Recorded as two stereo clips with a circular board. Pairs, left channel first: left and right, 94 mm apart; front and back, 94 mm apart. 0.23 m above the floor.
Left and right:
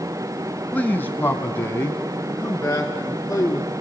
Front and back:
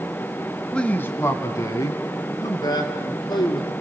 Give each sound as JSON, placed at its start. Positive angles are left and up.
{"t": 0.7, "sound": "a man speaking", "azimuth_deg": 65, "distance_m": 0.9}